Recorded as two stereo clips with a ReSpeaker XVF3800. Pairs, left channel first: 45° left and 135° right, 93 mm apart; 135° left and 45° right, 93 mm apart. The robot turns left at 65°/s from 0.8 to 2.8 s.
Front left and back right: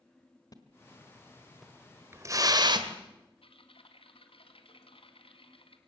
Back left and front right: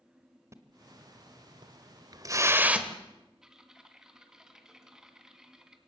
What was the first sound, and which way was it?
A splash, 5° left.